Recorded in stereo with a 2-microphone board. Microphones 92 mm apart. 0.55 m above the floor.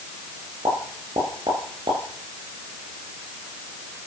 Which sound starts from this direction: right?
A pop, at 0.7 s.